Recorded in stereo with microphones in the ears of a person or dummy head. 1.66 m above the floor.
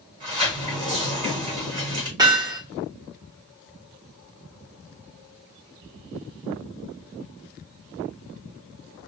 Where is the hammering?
20° right (ahead or behind), 2.0 m.